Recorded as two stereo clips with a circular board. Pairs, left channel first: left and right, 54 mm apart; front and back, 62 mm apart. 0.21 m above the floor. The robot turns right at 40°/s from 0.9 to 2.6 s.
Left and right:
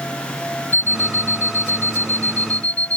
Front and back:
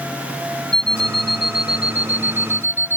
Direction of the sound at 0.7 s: 75° left.